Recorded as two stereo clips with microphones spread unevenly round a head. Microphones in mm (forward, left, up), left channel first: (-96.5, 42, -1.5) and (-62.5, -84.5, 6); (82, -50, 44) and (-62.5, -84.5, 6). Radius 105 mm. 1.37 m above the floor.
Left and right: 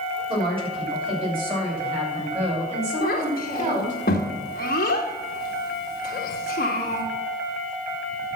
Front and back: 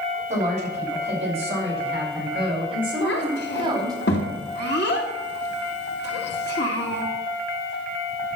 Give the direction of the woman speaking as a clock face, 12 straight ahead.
4 o'clock.